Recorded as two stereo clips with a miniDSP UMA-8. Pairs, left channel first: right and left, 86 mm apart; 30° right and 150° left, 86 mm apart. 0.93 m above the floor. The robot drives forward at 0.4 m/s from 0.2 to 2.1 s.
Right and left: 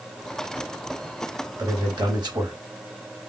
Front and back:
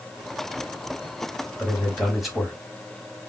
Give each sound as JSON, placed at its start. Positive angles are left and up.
{"t": 1.6, "sound": "a man speaking", "azimuth_deg": 55, "distance_m": 2.0}